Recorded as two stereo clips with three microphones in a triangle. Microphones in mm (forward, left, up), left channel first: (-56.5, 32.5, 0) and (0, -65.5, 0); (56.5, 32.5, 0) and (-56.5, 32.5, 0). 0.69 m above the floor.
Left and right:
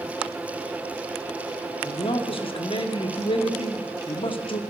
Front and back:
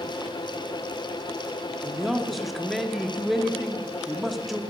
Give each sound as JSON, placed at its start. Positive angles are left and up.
{"t": 1.8, "sound": "a man speaking", "azimuth_deg": 90, "distance_m": 1.1}